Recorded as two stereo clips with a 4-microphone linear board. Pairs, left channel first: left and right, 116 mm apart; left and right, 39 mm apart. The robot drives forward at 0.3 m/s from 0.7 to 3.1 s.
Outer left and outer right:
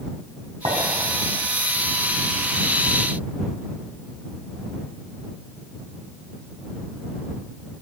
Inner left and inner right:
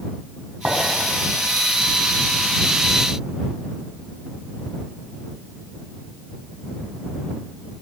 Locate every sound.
0.7 s a clink: 60° right (ahead or behind), 4 m